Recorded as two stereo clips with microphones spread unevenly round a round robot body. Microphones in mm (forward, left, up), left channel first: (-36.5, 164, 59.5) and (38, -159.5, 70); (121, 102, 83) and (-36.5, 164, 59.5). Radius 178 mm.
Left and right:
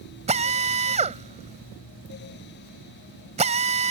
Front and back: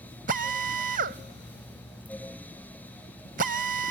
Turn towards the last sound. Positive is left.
turn(degrees=-150)